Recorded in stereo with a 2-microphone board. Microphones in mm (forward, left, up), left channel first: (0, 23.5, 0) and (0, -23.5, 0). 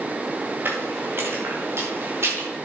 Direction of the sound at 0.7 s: 55° right (ahead or behind).